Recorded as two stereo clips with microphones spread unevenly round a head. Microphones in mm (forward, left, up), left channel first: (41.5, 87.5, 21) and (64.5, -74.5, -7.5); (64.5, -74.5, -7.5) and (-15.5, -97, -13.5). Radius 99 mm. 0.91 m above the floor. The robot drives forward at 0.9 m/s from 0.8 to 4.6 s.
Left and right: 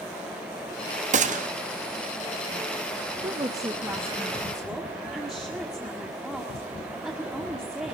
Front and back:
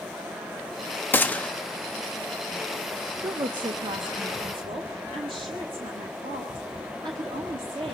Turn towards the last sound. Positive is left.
turn(degrees=-165)